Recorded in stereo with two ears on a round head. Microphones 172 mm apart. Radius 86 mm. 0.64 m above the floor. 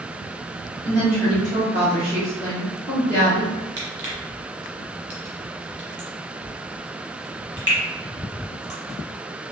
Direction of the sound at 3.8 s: 15° right (ahead or behind).